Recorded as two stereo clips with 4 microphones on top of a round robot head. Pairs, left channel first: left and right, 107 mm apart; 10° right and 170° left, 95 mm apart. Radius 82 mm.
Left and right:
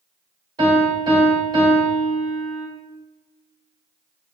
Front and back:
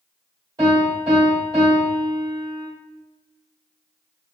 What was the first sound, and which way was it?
A piano, 140° right.